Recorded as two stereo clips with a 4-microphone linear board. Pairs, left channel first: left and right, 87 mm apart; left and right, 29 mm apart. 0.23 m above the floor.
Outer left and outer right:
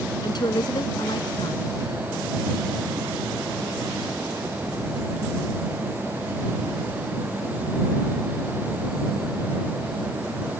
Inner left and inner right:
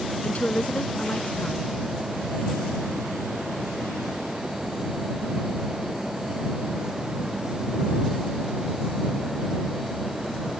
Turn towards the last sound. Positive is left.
turn(degrees=60)  # may be behind; listen again after turning